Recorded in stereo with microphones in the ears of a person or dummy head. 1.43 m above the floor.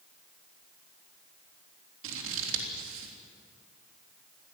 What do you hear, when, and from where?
2.0 s scissors: 75° right (ahead or behind), 3.5 m